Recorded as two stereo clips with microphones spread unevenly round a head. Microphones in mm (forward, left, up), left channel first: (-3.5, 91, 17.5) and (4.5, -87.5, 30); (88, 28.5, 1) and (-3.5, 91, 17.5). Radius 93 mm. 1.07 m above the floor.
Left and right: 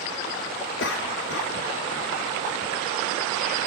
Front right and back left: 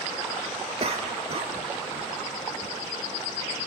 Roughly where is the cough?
Behind left.